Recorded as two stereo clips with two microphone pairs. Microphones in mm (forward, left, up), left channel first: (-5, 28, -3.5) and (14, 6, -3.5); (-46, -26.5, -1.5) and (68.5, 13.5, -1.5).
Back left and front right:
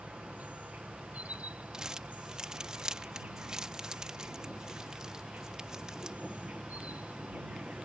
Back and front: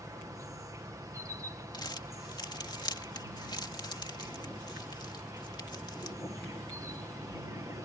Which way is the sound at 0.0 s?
40° right.